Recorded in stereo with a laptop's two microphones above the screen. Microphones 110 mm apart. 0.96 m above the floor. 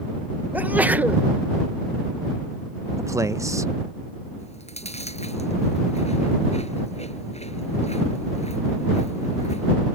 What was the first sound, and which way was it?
A sneeze, 15° right (ahead or behind).